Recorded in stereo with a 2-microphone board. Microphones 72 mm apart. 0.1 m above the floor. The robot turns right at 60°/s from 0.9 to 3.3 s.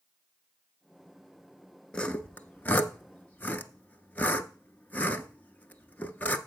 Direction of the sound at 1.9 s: 15° left (ahead or behind).